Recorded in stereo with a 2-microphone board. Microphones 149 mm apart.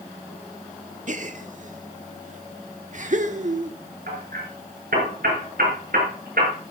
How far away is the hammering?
About 6 m.